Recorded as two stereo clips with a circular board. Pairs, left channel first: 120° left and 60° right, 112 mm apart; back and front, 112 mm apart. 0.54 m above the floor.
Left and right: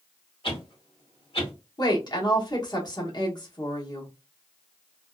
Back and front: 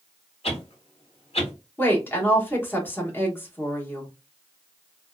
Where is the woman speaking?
125° left, 1.1 m.